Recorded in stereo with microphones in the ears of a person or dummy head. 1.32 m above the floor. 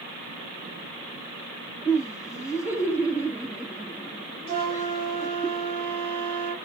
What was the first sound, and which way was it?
Laughter, 15° right (ahead or behind).